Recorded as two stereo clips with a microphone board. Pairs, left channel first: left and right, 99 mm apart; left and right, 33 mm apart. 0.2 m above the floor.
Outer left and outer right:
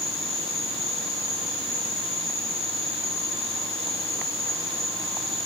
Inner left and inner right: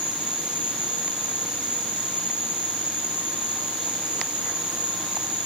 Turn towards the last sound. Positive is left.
turn(degrees=-30)  # may be behind; listen again after turning